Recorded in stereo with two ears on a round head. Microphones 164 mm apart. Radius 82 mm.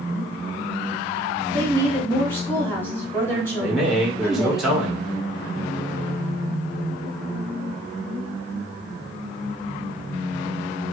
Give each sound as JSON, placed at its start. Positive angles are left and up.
{"t": 1.5, "sound": "a woman speaking", "side_deg": 10, "distance_m": 1.7}
{"t": 3.6, "sound": "a man speaking", "side_deg": -5, "distance_m": 1.1}